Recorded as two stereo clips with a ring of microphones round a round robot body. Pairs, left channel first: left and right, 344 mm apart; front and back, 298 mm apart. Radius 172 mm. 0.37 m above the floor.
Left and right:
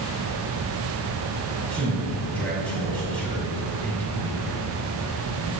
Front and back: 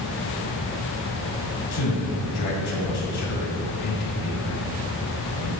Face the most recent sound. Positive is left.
turn(degrees=5)